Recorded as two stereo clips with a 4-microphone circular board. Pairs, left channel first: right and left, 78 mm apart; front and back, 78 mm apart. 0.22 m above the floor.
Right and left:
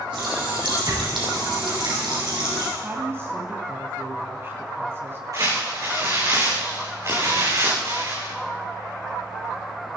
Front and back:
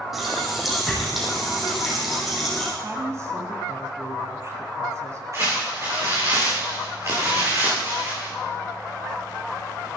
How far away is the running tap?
About 5 m.